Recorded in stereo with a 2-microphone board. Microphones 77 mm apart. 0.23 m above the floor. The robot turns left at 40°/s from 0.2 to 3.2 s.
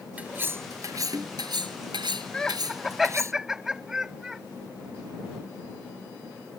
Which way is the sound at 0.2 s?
20° right.